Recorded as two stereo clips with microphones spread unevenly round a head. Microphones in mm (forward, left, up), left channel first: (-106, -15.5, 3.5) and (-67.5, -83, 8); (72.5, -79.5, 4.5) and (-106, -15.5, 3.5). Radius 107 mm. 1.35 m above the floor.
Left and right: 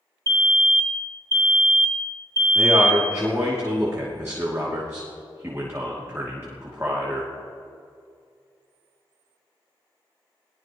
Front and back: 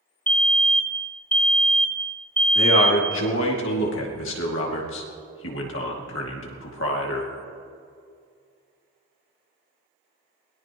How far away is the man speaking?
About 2.5 m.